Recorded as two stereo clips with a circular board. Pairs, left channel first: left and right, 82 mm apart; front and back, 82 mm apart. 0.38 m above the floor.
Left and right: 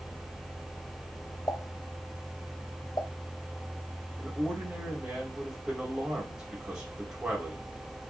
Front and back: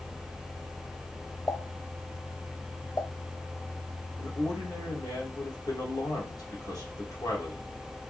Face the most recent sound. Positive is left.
turn(degrees=-10)